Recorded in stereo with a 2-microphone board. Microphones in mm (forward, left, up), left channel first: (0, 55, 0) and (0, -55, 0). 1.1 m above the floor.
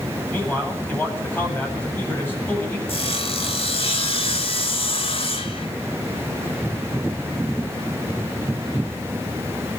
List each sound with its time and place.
0.3 s a man speaking: 20° left (ahead or behind), 8 m
2.9 s sawing: 60° left (ahead or behind), 2.5 m